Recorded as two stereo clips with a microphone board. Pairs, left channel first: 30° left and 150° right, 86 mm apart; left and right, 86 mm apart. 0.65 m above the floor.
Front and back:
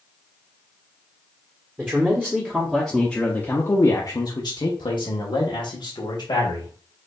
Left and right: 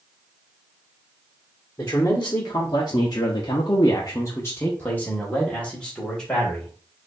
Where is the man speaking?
145° left, 1.3 m; by 6.7 s 5° left, 1.9 m.